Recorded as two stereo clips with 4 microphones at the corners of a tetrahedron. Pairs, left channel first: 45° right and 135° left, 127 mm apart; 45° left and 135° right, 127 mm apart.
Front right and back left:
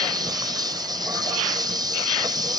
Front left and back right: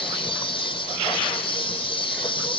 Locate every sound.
0.0 s an insect: 85° left